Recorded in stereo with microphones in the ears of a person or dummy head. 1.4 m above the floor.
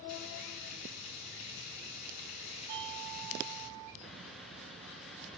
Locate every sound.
0.1 s frying: 40° left (ahead or behind), 6.5 m
2.7 s a doorbell: 80° right, 3.5 m
4.0 s a bird: centre (ahead or behind), 1.6 m